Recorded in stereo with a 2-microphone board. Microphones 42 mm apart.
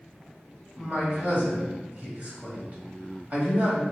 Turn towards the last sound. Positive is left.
turn(degrees=-35)  # may be behind; listen again after turning